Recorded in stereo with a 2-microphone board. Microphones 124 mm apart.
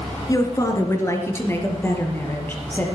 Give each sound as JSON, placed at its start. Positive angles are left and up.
{"t": 0.3, "sound": "a woman speaking", "side_deg": 30, "distance_m": 2.0}